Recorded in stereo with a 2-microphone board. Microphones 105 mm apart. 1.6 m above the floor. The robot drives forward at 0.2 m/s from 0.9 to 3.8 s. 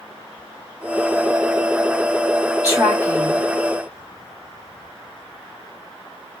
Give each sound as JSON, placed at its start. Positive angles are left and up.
{"t": 2.6, "sound": "a woman speaking", "side_deg": -30, "distance_m": 3.0}